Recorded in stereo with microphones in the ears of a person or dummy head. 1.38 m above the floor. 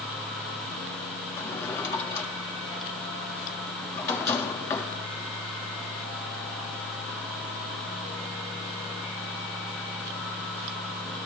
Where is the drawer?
15° left (ahead or behind), 1.6 m.